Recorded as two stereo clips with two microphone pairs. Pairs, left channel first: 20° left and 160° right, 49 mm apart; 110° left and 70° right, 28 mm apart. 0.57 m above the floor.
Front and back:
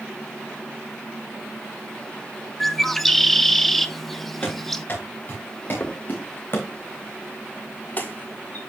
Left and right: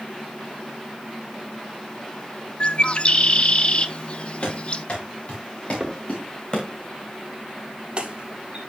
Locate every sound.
2.6 s a bird: 95° left, 0.6 m
4.4 s running footsteps: 65° left, 5.5 m; by 6.7 s 50° left, 2 m
5.8 s a crack: 25° right, 1.9 m